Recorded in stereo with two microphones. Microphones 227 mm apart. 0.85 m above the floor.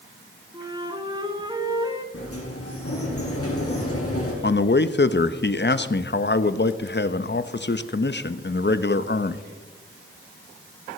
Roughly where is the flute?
Centre.